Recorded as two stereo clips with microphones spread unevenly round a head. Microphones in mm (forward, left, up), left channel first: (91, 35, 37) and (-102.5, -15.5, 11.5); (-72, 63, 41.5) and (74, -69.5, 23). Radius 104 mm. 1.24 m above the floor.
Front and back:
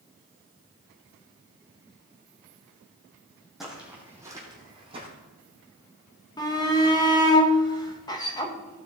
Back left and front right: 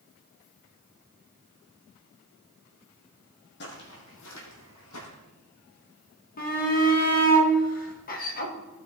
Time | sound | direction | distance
3.6 | footsteps | 105° left | 3 m
6.4 | a shout | 90° left | 1.9 m